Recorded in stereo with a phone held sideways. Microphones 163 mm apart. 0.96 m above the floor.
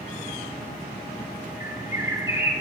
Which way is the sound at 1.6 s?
15° right (ahead or behind).